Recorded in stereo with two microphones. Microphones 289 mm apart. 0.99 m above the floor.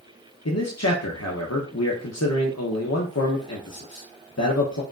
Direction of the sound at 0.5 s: 65° left (ahead or behind).